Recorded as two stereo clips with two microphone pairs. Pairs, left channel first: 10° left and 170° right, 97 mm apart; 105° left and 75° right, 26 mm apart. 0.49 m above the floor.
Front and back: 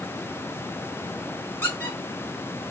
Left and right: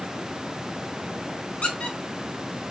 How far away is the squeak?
About 1.3 m.